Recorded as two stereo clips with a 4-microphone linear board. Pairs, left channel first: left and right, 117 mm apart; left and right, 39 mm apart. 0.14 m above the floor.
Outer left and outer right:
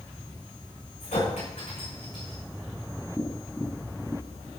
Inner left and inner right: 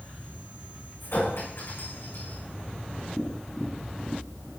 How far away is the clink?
About 8 m.